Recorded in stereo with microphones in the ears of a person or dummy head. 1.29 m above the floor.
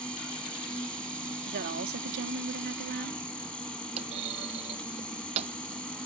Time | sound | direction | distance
0.0 | an insect | centre (ahead or behind) | ?
1.5 | a woman speaking | 50° right (ahead or behind) | ?
4.0 | a clunk | 30° right (ahead or behind) | ?